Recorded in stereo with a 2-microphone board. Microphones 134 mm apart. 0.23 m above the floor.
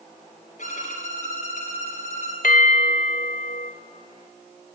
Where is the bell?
75° left (ahead or behind), 1.0 m.